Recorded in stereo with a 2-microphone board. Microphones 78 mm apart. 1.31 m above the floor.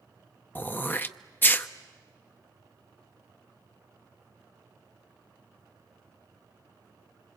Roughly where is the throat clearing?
Left.